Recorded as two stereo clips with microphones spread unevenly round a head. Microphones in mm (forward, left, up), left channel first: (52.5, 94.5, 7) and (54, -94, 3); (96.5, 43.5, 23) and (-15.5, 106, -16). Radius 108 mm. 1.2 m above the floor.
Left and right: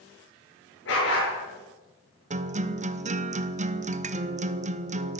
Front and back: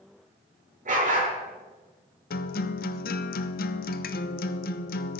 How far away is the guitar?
About 0.7 m.